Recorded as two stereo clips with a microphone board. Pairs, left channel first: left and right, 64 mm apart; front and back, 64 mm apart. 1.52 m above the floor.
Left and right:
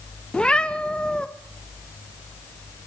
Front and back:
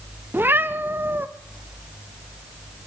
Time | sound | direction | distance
0.3 | a cat meowing | 160° left | 0.8 m